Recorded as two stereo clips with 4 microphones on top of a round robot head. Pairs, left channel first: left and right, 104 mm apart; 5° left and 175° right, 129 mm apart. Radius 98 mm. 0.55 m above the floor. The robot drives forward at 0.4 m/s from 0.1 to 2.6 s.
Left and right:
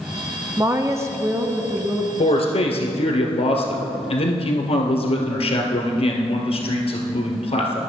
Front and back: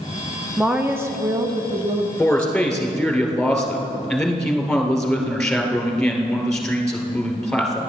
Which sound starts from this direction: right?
A woman speaking, at 0.6 s.